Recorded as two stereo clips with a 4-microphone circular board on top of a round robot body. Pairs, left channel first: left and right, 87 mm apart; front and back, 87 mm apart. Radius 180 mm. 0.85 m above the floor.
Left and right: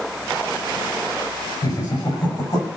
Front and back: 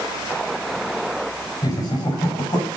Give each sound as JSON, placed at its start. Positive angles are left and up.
{"t": 1.6, "sound": "laughter", "azimuth_deg": 50, "distance_m": 5.5}